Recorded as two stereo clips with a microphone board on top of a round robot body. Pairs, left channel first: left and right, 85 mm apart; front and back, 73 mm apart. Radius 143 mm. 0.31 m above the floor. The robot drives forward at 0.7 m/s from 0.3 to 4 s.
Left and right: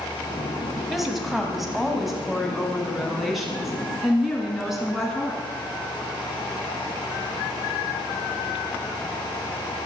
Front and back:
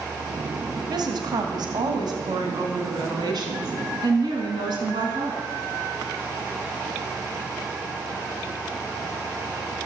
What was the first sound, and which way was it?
A woman speaking, straight behind.